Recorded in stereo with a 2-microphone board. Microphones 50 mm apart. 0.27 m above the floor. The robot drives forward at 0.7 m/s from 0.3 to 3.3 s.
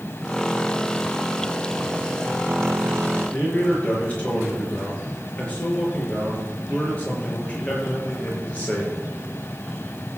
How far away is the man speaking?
About 5 m.